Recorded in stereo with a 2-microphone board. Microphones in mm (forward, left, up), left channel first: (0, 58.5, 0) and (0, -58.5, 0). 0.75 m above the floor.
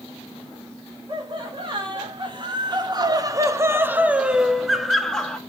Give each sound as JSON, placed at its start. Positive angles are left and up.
{"t": 1.1, "sound": "laughter", "side_deg": -40, "distance_m": 1.5}